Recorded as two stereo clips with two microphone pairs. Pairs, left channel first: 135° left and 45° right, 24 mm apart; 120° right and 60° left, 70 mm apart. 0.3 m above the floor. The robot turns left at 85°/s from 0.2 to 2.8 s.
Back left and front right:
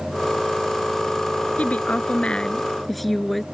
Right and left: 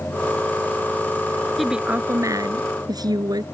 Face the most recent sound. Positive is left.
turn(degrees=50)